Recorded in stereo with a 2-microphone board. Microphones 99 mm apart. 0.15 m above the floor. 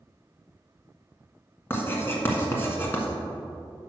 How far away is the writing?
About 1.5 m.